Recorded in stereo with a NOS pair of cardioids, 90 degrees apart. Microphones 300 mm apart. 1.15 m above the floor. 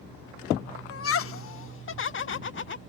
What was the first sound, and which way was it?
Laughter, 50° left.